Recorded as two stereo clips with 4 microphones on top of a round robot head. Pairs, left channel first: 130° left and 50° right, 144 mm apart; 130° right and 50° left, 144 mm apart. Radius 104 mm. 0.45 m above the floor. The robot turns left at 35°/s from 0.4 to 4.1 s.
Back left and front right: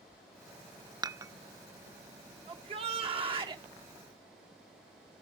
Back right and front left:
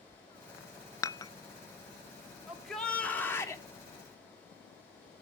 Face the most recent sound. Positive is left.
turn(degrees=-95)